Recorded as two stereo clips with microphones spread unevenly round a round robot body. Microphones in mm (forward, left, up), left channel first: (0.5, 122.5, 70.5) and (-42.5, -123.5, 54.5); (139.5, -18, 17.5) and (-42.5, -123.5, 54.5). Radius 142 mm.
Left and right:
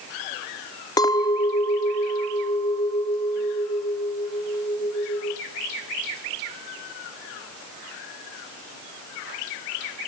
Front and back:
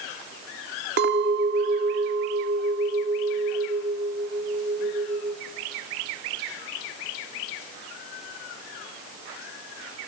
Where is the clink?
155° left, 0.7 m.